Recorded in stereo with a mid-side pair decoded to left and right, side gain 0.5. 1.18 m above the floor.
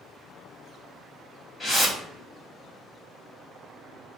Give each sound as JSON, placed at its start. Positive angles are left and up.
{"t": 1.6, "sound": "a whoosh", "azimuth_deg": 30, "distance_m": 1.4}